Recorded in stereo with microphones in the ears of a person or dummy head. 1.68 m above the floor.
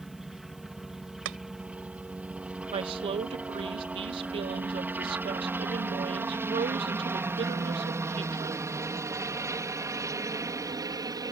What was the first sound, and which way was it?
A helicopter, 5° left (ahead or behind).